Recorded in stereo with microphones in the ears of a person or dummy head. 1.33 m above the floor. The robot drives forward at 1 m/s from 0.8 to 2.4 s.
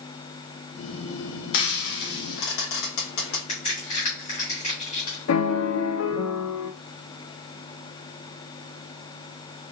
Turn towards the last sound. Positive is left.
turn(degrees=85)